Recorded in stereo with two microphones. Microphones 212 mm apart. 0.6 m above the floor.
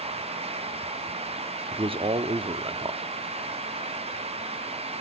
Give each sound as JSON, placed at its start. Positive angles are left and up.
{"t": 1.7, "sound": "a man speaking", "side_deg": -25, "distance_m": 0.9}